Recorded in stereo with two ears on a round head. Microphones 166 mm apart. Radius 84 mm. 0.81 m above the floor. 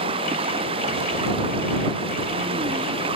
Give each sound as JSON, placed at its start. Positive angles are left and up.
{"t": 0.0, "sound": "running water", "side_deg": -30}